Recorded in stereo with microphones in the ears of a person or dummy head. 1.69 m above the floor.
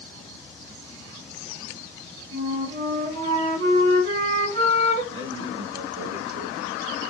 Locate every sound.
2.3 s a flute: 45° right (ahead or behind), 2 m
5.1 s a man speaking: 35° right (ahead or behind), 2.5 m